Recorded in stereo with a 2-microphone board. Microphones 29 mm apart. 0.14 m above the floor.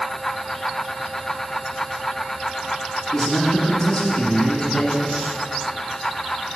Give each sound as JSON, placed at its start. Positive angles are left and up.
{"t": 3.1, "sound": "a man speaking", "side_deg": 30, "distance_m": 1.6}